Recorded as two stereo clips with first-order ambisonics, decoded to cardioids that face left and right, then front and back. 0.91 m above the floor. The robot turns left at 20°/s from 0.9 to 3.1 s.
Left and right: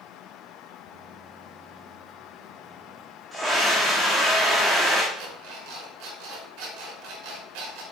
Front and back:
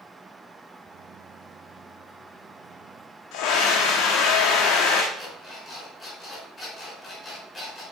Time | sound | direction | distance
3.3 | a scream | 10° right | 1.5 m
5.1 | an alarm clock | 70° right | 5 m